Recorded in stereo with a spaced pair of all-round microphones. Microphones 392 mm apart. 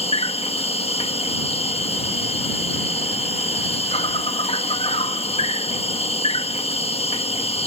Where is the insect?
15° left (ahead or behind).